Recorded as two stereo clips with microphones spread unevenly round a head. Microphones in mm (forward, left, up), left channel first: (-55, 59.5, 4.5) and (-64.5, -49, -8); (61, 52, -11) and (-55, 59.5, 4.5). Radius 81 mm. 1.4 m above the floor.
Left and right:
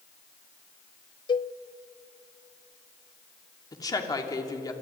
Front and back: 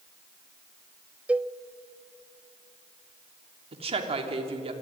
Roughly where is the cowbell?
Left.